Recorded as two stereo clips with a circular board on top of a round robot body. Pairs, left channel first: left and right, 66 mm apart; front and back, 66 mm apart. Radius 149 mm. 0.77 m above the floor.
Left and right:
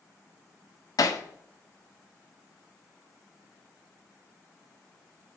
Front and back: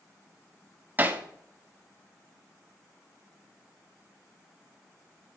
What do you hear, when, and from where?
1.0 s hammering: 115° left, 1.4 m